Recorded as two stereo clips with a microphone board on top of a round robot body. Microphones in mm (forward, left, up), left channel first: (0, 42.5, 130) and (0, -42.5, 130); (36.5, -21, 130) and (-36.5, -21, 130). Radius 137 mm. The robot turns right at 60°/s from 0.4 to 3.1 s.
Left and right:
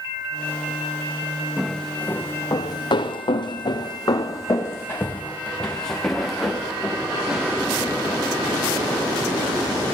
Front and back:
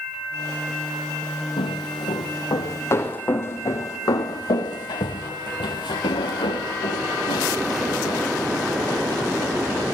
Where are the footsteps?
5° right, 3 m; by 9.6 s 20° right, 5.5 m.